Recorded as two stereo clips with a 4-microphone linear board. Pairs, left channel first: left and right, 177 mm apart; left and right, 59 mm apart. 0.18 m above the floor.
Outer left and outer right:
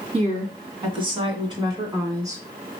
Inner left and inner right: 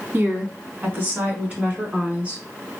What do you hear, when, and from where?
0.1 s a woman speaking: 35° right (ahead or behind), 1.9 m; by 2.4 s 20° right (ahead or behind), 2.5 m